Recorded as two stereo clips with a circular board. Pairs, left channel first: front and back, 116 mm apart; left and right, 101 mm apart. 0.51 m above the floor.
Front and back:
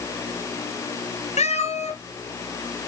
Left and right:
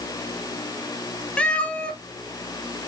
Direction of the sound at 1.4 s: 10° left.